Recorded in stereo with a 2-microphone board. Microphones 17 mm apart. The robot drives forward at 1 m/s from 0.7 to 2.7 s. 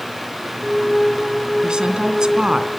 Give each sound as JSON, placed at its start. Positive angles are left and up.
{"t": 1.6, "sound": "a woman speaking", "side_deg": -60, "distance_m": 2.0}